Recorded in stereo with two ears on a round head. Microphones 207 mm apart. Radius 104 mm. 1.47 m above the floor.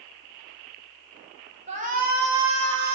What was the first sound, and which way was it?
A shout, 30° right (ahead or behind).